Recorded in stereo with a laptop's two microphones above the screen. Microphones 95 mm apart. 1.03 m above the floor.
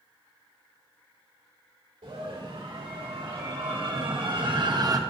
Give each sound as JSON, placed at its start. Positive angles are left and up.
{"t": 2.0, "sound": "a scream", "side_deg": -85, "distance_m": 2.5}